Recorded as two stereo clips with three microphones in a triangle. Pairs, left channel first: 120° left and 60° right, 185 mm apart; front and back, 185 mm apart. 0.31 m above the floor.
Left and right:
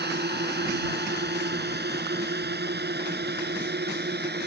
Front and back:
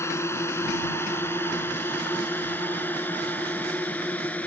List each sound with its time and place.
0.0 s a drone: 75° right; by 4.5 s 80° right